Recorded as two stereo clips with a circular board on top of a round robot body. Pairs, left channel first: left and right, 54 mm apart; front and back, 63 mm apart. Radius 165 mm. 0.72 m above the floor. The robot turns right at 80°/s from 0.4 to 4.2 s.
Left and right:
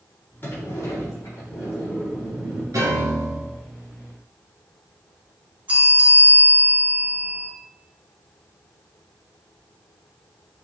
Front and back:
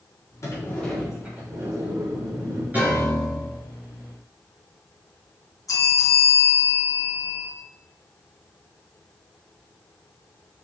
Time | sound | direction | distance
0.4 | a sliding door | 35° left | 3.5 m
2.7 | a piano | 115° right | 3 m
5.7 | a bell | 30° right | 3.5 m